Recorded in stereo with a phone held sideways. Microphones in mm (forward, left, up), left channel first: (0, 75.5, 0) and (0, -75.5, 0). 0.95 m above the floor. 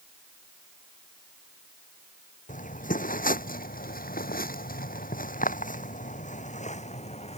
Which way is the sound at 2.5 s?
60° left (ahead or behind).